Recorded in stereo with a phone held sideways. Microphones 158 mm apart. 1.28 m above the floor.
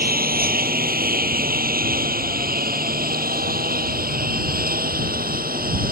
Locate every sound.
0.0 s a lawn mower: 85° right; by 5.9 s 80° right